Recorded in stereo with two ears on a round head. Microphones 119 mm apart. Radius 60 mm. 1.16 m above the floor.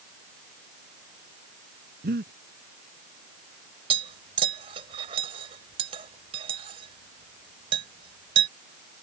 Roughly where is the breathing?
Right.